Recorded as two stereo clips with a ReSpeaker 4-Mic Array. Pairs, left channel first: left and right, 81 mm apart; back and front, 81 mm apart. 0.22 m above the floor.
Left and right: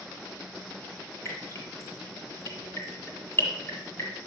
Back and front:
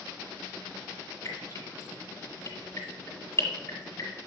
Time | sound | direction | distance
1.2 | dripping | 135° left | 2 m